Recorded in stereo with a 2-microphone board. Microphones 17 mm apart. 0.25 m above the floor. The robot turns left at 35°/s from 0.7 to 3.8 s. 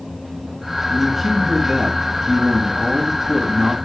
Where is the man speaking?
Straight ahead, 2.5 m; by 3.8 s 100° right, 2.5 m.